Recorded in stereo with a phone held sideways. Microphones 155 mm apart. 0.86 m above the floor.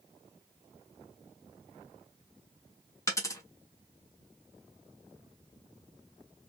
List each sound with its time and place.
3.1 s a dropped coin: 20° left (ahead or behind), 1.0 m